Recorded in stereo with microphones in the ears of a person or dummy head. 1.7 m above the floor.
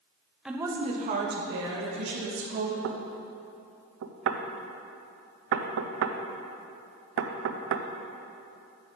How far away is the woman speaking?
About 0.8 m.